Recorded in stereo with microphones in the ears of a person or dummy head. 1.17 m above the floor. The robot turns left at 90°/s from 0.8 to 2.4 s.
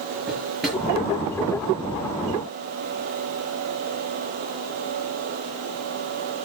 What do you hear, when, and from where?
0.3 s a drawer: 5° right (ahead or behind), 6.5 m